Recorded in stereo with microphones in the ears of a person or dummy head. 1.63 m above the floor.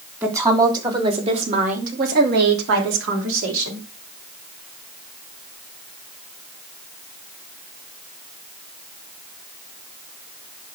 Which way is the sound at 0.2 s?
15° right (ahead or behind).